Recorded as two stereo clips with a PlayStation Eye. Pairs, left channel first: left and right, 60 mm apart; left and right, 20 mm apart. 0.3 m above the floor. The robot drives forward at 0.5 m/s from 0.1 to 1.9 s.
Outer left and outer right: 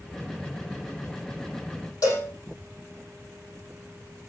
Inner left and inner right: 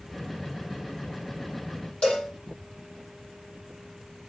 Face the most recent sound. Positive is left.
turn(degrees=70)  # may be behind; listen again after turning